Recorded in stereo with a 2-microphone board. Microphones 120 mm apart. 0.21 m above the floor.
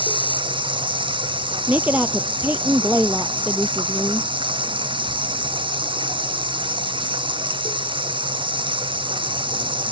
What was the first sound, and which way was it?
Running water, 45° right (ahead or behind).